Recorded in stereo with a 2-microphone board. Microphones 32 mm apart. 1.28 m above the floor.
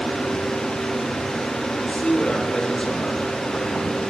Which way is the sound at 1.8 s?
35° left (ahead or behind).